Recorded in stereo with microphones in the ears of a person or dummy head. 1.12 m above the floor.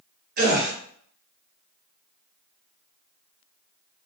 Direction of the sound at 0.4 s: 55° right (ahead or behind).